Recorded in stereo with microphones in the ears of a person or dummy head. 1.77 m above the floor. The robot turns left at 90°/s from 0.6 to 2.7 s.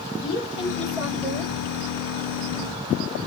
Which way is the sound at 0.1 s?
30° left.